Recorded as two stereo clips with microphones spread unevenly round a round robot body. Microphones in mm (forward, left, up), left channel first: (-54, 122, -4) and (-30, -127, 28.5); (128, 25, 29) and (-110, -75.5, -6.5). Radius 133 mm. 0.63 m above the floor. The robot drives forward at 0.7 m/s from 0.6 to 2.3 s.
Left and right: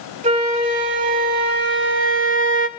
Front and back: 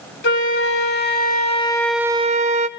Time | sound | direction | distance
0.2 | a flute | 20° right | 1.3 m